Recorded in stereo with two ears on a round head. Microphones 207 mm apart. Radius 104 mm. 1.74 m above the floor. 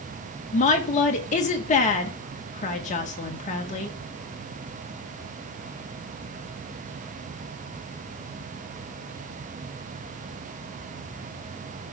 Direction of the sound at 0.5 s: 35° left (ahead or behind).